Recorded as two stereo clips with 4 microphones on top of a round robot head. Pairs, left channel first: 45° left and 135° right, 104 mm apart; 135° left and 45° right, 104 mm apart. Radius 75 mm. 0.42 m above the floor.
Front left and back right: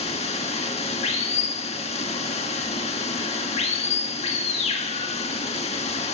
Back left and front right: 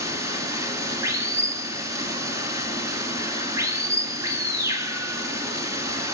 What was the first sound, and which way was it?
Running water, 20° left.